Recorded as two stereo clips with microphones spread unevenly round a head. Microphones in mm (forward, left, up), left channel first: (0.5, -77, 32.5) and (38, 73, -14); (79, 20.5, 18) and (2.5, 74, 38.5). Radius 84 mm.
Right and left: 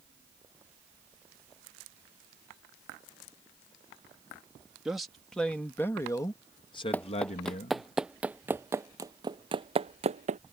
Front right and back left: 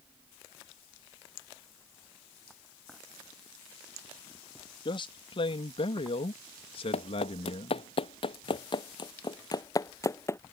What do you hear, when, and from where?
4.8 s a man speaking: 10° right; by 7.9 s 65° right
6.9 s running footsteps: 30° right; by 10.4 s 30° left